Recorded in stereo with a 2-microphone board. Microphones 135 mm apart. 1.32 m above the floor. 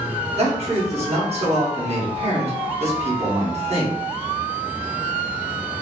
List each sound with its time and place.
0.4 s a man speaking: 50° right (ahead or behind), 1.0 m